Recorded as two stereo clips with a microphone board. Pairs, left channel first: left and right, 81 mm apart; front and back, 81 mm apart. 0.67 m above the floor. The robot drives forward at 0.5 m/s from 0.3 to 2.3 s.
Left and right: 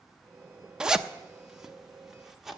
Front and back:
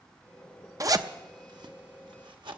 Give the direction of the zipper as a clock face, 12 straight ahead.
6 o'clock.